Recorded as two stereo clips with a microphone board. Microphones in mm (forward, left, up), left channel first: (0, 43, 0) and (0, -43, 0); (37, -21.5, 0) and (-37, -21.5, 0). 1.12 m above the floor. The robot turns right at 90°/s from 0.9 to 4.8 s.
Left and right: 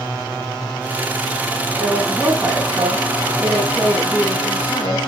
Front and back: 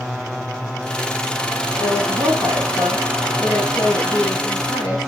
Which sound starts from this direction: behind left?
A woman speaking, at 1.8 s.